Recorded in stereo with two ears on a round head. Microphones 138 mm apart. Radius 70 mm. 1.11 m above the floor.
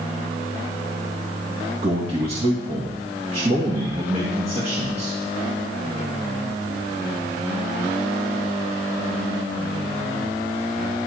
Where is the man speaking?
40° right (ahead or behind), 2 m.